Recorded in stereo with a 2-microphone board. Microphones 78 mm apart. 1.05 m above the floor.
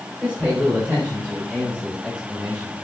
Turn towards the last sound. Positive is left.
turn(degrees=-10)  # may be behind; listen again after turning